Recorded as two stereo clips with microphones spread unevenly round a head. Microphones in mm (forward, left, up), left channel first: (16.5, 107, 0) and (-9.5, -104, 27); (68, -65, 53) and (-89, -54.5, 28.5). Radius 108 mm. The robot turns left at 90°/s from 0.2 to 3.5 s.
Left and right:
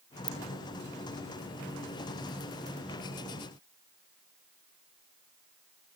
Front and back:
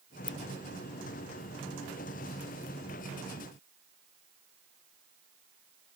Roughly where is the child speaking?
No child speaking in this recording.